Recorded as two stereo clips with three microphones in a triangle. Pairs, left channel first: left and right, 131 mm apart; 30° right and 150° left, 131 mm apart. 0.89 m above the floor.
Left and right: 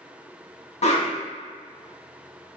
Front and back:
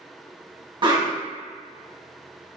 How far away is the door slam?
I don't hear a door slam.